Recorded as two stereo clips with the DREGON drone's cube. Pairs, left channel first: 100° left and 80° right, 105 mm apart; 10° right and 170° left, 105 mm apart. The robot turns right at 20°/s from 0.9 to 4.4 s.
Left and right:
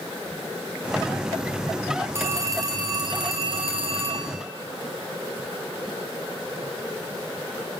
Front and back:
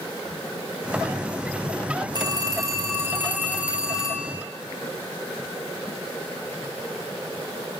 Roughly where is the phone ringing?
Behind right.